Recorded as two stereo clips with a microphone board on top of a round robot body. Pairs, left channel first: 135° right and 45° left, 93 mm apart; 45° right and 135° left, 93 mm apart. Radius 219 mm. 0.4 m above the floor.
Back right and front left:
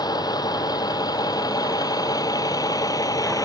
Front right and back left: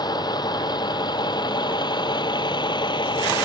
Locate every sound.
0.0 s a vehicle: 90° right; by 3.5 s 85° right